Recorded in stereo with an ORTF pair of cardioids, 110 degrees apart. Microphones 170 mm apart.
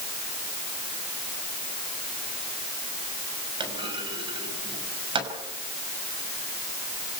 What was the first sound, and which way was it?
A clunk, 30° right.